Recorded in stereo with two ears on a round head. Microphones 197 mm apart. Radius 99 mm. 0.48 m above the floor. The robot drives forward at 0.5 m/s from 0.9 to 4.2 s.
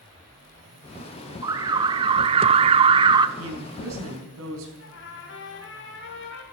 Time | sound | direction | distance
1.4 | an alarm | 15° right (ahead or behind) | 0.7 m
3.4 | a woman speaking | 75° right (ahead or behind) | 4 m
4.8 | a trumpet | 60° left (ahead or behind) | 3 m